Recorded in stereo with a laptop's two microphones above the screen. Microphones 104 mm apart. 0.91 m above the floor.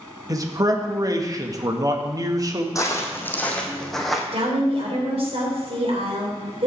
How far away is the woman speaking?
About 3.5 m.